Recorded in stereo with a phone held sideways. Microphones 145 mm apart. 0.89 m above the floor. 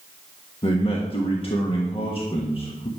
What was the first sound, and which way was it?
A man speaking, 40° left (ahead or behind).